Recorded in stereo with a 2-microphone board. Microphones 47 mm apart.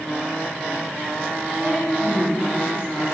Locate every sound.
1.6 s a woman speaking: 20° right (ahead or behind), 1.6 m